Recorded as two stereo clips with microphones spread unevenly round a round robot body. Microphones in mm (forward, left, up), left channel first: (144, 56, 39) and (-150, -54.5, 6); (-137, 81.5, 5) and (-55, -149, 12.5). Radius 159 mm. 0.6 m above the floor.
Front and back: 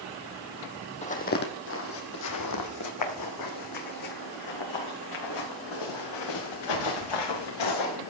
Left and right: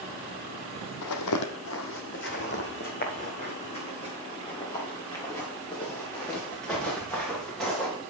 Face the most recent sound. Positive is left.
turn(degrees=20)